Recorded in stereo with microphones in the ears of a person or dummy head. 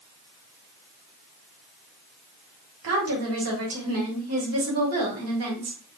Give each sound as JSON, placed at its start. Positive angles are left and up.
{"t": 2.8, "sound": "a woman speaking", "side_deg": -80, "distance_m": 1.4}